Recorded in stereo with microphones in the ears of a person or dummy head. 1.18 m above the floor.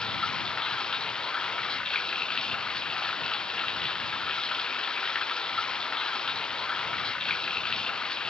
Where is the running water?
10° left (ahead or behind).